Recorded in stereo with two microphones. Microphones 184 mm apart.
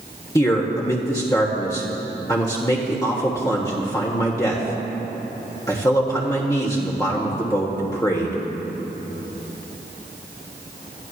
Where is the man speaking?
20° left (ahead or behind), 1.4 m.